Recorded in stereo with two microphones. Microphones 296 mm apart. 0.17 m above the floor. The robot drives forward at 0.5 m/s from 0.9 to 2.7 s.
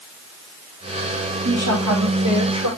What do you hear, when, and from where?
1.4 s a woman speaking: 65° right (ahead or behind), 6.5 m; by 2.7 s 70° right (ahead or behind), 6 m